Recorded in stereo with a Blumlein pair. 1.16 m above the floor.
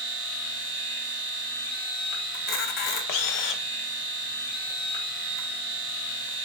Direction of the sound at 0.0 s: 30° right.